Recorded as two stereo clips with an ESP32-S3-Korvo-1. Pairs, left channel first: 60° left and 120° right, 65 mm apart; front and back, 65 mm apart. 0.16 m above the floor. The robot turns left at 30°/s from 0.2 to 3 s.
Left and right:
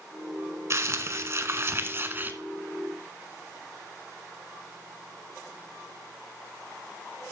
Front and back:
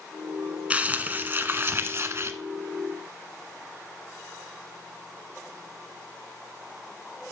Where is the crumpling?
120° right, 0.9 m; by 2.3 s 165° right, 0.9 m.